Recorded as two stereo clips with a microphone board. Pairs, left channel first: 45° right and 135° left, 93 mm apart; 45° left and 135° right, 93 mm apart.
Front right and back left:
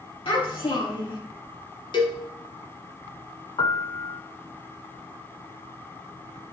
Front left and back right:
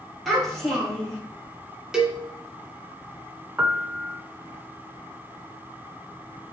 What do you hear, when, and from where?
0.2 s a child speaking: 45° right, 4 m
1.9 s a cowbell: 55° right, 1.4 m
3.6 s a piano: 70° right, 0.5 m